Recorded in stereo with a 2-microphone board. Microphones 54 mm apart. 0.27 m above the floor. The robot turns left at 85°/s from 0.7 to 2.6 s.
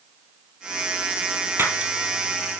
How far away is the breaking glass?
About 3 m.